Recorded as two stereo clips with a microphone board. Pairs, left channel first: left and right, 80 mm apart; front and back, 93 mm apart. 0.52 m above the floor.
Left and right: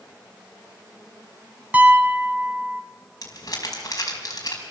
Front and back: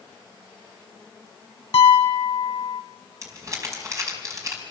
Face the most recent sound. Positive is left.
turn(degrees=130)